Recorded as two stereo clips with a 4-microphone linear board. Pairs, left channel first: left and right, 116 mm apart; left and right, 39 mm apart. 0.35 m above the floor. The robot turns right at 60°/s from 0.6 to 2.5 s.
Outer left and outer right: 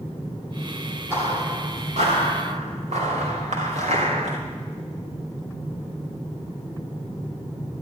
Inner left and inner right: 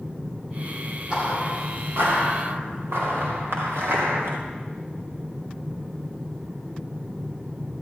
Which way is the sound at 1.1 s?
20° right (ahead or behind).